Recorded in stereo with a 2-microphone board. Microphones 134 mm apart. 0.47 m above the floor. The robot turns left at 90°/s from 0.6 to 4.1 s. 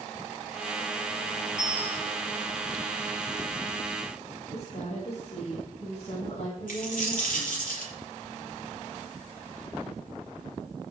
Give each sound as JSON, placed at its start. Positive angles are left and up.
{"t": 1.6, "sound": "a bicycle bell", "azimuth_deg": -35, "distance_m": 6.5}
{"t": 4.5, "sound": "a woman speaking", "side_deg": 55, "distance_m": 5.5}
{"t": 6.7, "sound": "a dropped coin", "side_deg": 85, "distance_m": 5.5}